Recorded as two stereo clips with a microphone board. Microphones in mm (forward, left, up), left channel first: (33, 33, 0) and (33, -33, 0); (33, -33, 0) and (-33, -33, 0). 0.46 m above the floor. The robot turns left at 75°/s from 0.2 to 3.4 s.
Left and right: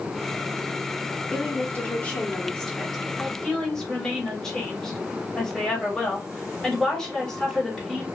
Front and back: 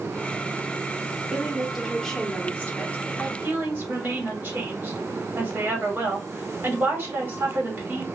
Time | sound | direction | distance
1.3 | a woman speaking | 120° left | 1.1 m
3.2 | a woman speaking | 175° right | 1.5 m